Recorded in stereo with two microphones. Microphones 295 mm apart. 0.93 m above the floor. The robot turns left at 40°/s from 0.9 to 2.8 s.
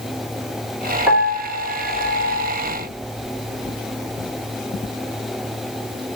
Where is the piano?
5° right, 2.5 m; by 2.5 s 60° right, 2.5 m.